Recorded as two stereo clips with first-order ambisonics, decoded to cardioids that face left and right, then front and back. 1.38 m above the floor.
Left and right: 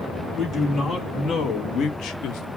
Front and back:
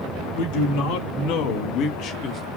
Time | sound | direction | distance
0.3 | a man speaking | 10° left | 2.5 m